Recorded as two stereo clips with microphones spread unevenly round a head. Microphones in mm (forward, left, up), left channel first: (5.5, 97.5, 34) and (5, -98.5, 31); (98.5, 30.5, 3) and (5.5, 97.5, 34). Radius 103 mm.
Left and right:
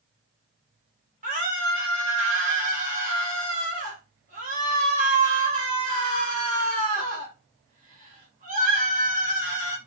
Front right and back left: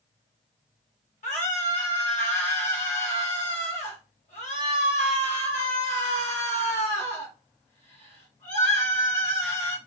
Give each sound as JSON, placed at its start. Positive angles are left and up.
{"t": 1.2, "sound": "a scream", "azimuth_deg": -40, "distance_m": 1.4}